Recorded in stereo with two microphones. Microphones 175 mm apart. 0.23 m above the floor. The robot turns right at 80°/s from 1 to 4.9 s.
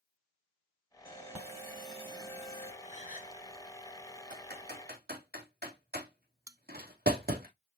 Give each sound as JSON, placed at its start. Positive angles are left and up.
{"t": 1.1, "sound": "an alarm", "azimuth_deg": -110, "distance_m": 4.5}
{"t": 2.8, "sound": "a gasp", "azimuth_deg": 60, "distance_m": 1.0}
{"t": 4.3, "sound": "typing on a keyboard", "side_deg": -60, "distance_m": 3.0}
{"t": 6.5, "sound": "a bell", "side_deg": -20, "distance_m": 0.6}